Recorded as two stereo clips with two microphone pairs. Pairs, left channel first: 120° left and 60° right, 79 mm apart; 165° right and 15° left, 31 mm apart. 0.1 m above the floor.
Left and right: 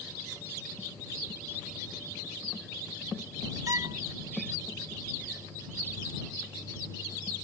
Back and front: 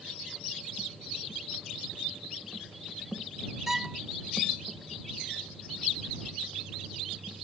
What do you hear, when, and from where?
3.7 s a violin: 60° right